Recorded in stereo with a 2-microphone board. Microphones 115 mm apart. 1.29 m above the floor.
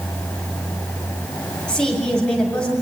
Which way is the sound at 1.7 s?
5° left (ahead or behind).